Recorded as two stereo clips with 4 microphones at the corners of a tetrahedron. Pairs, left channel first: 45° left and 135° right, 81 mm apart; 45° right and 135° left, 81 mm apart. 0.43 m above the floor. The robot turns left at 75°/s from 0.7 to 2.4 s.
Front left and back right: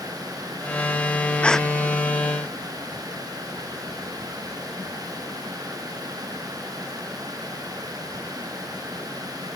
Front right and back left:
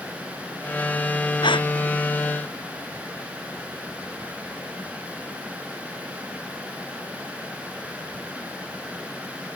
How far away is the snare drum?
I don't hear a snare drum.